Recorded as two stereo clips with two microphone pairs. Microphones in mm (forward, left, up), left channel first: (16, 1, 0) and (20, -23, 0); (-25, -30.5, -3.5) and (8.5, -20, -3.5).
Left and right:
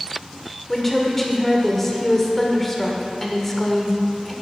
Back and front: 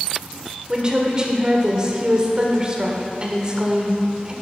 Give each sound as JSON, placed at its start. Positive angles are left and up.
{"t": 0.7, "sound": "a woman speaking", "azimuth_deg": 35, "distance_m": 1.2}